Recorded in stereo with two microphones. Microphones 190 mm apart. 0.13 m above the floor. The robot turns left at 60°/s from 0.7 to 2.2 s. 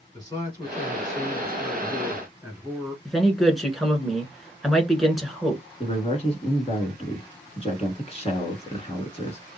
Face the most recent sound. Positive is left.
turn(degrees=35)  # may be behind; listen again after turning